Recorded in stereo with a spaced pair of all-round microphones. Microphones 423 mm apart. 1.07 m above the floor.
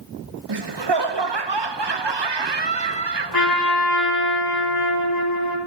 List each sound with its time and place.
0.5 s laughter: 70° right (ahead or behind), 0.8 m
3.3 s a trumpet: 55° left (ahead or behind), 1.6 m